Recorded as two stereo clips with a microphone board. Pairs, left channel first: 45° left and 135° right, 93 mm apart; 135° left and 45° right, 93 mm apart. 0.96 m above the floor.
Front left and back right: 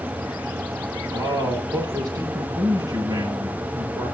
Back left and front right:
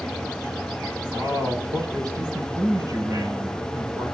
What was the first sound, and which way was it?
A man speaking, 90° right.